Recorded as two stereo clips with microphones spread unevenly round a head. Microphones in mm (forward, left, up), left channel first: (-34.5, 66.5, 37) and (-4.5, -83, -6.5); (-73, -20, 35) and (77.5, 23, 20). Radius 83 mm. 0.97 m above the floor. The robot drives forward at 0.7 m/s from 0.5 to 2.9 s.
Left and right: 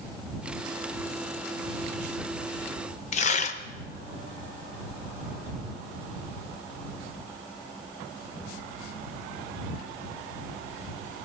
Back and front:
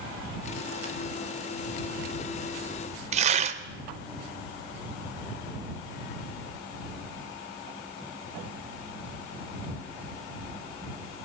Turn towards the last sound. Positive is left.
turn(degrees=50)